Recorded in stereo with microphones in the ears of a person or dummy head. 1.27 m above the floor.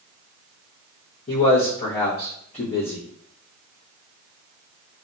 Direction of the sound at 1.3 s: 35° left (ahead or behind).